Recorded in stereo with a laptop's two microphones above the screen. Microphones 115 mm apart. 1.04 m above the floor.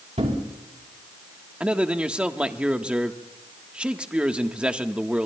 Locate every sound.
0.2 s a thud: 75° right (ahead or behind), 4 m
1.6 s a man speaking: 10° right (ahead or behind), 1.4 m